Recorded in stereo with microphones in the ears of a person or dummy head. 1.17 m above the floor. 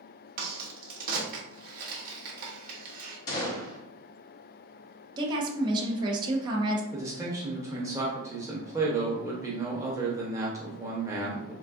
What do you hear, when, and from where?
0.4 s a crack: 55° right (ahead or behind), 1.0 m
3.3 s a gunshot: 10° left (ahead or behind), 0.8 m
5.2 s a woman speaking: 35° right (ahead or behind), 0.8 m
6.9 s a man speaking: 10° right (ahead or behind), 0.7 m